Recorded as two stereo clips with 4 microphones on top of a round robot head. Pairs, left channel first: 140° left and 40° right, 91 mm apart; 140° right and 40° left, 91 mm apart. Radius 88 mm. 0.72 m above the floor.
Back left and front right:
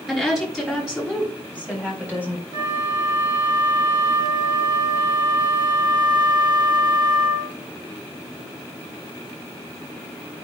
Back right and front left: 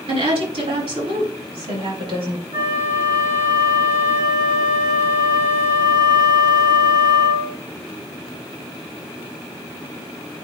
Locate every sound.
0.1 s a woman speaking: 50° left, 5 m; by 2.4 s 30° left, 5 m
2.5 s a flute: 20° right, 4.5 m